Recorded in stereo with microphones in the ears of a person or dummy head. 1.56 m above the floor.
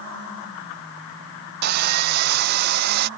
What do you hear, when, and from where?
1.6 s sawing: 60° right (ahead or behind)